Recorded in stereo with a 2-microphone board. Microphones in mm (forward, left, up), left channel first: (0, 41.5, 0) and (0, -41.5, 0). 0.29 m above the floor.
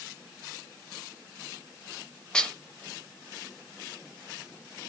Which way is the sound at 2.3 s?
10° left (ahead or behind).